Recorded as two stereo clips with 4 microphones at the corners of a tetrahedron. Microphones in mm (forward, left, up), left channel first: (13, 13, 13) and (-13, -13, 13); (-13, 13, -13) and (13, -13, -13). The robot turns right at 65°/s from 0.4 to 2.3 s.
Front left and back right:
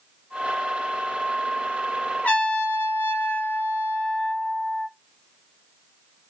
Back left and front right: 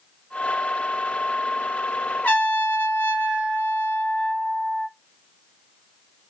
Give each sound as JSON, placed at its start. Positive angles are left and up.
{"t": 2.2, "sound": "a trumpet", "azimuth_deg": 85, "distance_m": 1.1}